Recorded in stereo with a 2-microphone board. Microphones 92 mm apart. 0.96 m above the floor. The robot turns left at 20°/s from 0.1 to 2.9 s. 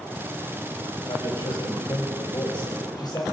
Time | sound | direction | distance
1.1 | a man speaking | 85° left | 4.5 m